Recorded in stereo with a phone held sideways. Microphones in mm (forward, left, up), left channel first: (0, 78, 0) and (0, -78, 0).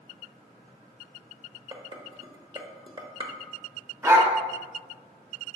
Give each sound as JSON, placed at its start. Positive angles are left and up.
{"t": 1.7, "sound": "dishes clattering", "side_deg": -30, "distance_m": 0.9}
{"t": 4.0, "sound": "a dog barking", "side_deg": -20, "distance_m": 1.1}